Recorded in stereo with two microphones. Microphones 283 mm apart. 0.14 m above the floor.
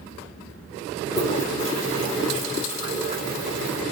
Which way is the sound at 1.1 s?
25° left (ahead or behind).